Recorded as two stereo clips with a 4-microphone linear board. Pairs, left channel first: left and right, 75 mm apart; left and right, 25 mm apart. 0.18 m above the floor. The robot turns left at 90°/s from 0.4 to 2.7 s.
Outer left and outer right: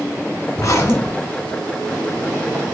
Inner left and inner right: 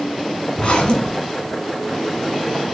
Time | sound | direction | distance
0.6 | a zipper | 70° left | 1.2 m